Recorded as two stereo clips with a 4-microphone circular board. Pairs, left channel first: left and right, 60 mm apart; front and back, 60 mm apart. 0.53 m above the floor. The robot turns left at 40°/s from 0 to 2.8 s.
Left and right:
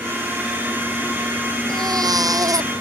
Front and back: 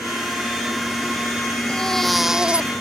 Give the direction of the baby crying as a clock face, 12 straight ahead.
2 o'clock.